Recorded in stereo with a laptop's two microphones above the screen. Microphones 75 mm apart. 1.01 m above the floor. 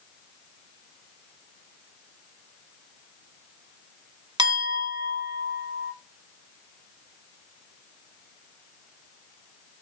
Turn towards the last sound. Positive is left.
turn(degrees=-70)  # may be behind; listen again after turning